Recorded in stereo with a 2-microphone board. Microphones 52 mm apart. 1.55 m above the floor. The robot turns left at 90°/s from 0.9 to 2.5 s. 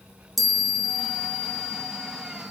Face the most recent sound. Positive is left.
turn(degrees=-145)